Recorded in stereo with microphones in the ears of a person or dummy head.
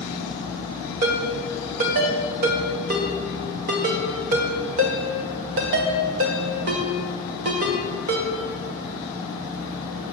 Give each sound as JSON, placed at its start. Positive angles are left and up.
{"t": 1.0, "sound": "a ringtone", "side_deg": -35, "distance_m": 0.7}